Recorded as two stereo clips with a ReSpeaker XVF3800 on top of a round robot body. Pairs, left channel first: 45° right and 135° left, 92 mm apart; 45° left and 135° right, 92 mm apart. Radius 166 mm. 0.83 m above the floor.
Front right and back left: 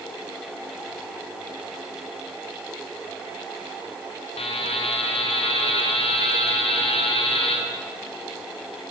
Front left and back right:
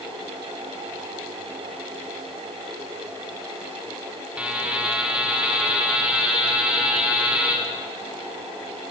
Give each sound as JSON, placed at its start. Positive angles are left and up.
{"t": 4.4, "sound": "a buzzer", "azimuth_deg": -55, "distance_m": 4.5}